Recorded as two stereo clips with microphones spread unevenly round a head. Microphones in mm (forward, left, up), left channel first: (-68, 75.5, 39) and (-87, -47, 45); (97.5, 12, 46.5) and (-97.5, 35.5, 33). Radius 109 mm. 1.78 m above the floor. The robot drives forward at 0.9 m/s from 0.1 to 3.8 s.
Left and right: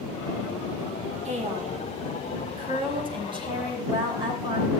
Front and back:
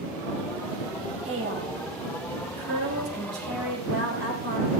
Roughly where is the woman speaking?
Behind right.